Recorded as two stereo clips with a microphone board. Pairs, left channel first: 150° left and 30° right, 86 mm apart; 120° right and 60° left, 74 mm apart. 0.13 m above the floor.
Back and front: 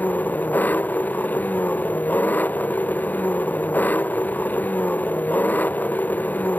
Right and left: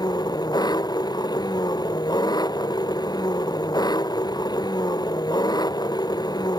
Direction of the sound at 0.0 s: 140° right.